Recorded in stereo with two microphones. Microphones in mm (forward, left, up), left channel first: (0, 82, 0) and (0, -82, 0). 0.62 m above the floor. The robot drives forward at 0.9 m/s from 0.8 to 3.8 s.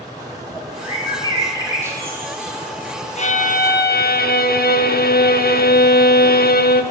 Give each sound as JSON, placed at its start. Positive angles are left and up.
{"t": 0.2, "sound": "a bird", "side_deg": -20, "distance_m": 2.5}
{"t": 3.2, "sound": "a violin", "side_deg": 45, "distance_m": 1.1}